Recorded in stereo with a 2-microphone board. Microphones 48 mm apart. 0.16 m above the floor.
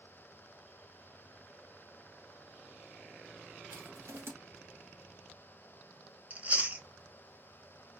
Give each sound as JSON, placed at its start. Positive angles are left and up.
{"t": 3.7, "sound": "crushing", "side_deg": -60, "distance_m": 1.1}
{"t": 6.3, "sound": "chewing", "side_deg": -30, "distance_m": 0.7}